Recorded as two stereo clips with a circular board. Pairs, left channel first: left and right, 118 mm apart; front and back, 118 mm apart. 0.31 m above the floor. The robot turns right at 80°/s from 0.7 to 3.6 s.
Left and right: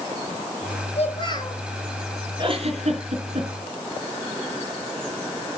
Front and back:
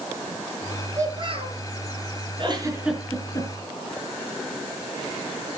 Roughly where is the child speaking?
Left.